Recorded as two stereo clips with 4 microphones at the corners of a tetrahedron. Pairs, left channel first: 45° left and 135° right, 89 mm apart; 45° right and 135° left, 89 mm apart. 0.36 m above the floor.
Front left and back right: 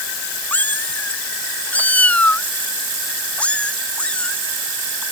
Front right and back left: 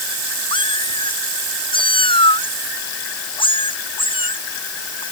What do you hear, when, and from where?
0.5 s a cat meowing: 25° right; by 5.0 s 35° right